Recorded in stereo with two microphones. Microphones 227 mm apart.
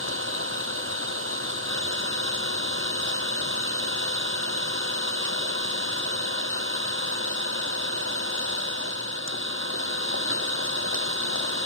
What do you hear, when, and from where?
0.0 s an engine running: 65° right (ahead or behind)